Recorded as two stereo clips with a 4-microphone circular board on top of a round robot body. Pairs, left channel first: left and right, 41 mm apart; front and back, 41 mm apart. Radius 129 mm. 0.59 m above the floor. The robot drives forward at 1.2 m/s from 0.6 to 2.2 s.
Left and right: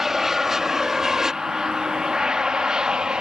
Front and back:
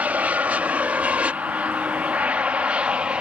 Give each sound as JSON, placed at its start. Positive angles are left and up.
{"t": 0.0, "sound": "an aircraft", "azimuth_deg": -170}